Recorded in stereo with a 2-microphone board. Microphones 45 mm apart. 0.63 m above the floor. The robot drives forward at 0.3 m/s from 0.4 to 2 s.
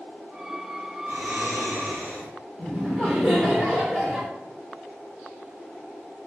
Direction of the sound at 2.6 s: 15° left (ahead or behind).